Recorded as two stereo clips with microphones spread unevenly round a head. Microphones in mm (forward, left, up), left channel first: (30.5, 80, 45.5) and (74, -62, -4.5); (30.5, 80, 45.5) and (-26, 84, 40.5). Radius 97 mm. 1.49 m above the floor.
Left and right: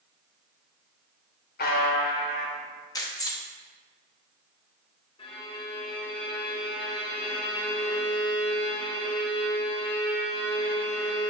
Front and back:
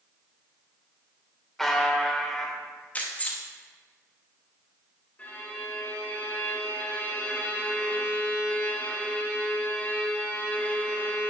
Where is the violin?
55° left, 1.8 m.